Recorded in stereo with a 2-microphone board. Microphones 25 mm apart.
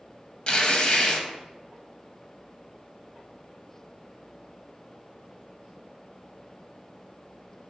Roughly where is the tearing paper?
Left.